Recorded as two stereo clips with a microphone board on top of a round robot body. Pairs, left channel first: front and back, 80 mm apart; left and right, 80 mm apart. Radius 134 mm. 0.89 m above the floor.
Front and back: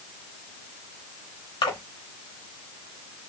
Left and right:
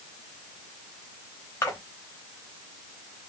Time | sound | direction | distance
1.6 | a splash | 25° left | 1.0 m